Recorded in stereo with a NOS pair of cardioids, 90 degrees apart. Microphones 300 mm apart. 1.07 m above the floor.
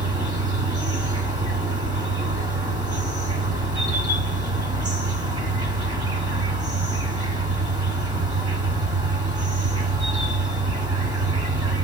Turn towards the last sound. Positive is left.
turn(degrees=-15)